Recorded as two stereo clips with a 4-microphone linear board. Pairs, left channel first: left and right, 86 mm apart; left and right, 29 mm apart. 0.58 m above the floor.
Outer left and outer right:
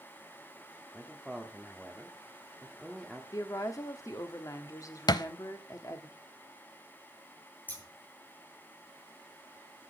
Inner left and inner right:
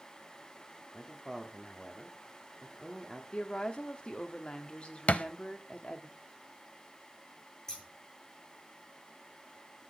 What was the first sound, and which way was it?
A man speaking, centre (ahead or behind).